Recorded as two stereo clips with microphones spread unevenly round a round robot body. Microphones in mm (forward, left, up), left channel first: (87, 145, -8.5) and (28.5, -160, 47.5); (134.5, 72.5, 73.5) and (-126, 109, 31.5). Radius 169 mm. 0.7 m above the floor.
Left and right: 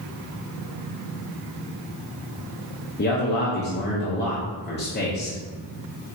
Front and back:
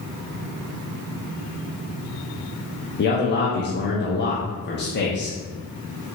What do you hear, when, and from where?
3.0 s a man speaking: 40° left, 0.9 m